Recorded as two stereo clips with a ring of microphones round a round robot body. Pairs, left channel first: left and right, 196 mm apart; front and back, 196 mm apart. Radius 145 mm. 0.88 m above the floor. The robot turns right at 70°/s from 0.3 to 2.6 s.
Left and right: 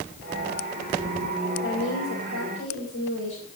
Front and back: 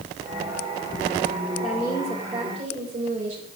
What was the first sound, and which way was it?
A woman speaking, 60° left.